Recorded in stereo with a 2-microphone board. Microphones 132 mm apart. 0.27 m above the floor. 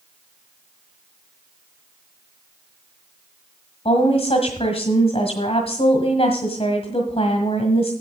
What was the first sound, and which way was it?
A woman speaking, 45° left (ahead or behind).